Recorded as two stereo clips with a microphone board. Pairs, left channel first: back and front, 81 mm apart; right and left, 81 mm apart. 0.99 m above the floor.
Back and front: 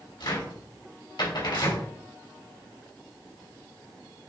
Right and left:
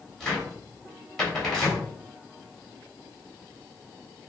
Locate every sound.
0.2 s a cupboard door: 175° right, 3.5 m